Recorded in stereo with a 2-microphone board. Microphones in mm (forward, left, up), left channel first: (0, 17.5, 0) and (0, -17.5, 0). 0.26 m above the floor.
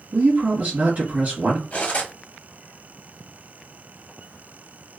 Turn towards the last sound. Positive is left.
turn(degrees=40)  # may be behind; listen again after turning